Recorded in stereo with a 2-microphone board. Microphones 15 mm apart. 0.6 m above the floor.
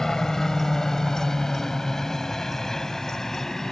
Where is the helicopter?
40° left (ahead or behind); by 3.7 s 35° left (ahead or behind).